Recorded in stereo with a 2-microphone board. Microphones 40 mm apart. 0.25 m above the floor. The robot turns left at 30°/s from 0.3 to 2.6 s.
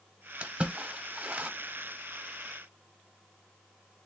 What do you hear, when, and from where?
0.4 s a splash: 25° right (ahead or behind), 0.9 m; by 1.5 s 30° right (ahead or behind), 0.9 m